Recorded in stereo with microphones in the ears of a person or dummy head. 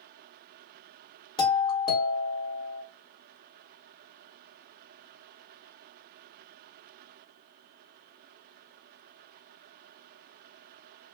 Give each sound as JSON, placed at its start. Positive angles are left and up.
{"t": 1.4, "sound": "a doorbell", "side_deg": 30, "distance_m": 1.7}